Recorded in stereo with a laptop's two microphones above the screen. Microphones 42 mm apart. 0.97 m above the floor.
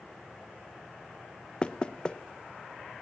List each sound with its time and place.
1.6 s knocking: 25° left (ahead or behind), 0.6 m